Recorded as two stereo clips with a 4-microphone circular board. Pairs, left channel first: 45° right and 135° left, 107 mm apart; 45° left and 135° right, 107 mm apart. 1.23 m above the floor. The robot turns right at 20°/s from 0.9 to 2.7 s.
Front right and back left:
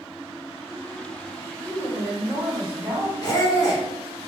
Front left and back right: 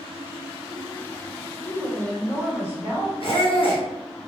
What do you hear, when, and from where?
1.6 s a woman speaking: 35° right, 1.9 m; by 3.1 s 15° right, 1.9 m
3.2 s a squeak: 10° left, 1.2 m